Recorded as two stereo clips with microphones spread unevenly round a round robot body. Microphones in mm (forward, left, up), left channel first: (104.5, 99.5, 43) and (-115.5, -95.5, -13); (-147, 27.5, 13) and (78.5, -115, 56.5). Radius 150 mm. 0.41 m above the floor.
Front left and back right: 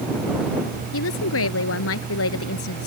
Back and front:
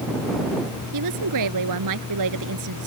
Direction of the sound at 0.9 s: 5° right.